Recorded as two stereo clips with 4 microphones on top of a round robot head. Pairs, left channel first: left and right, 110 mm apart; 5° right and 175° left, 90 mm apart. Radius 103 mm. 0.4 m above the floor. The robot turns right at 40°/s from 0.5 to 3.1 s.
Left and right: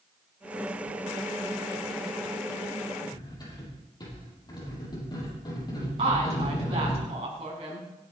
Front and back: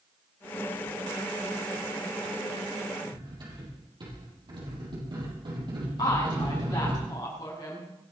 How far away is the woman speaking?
About 5 m.